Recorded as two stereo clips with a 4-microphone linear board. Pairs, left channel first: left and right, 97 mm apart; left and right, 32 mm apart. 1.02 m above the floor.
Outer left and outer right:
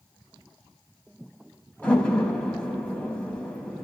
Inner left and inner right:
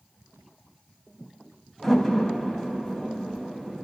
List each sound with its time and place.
1.8 s a door slam: 15° left (ahead or behind), 4 m